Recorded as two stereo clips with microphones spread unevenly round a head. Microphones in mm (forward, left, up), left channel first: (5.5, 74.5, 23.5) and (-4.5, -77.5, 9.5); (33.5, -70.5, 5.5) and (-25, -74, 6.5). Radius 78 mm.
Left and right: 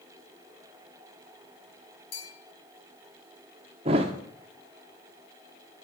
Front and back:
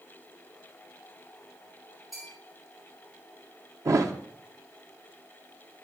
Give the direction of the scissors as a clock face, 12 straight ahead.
No scissors in this recording.